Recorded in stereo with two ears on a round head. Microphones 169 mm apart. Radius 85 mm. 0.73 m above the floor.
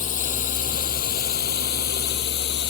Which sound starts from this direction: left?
A drone, at 0.0 s.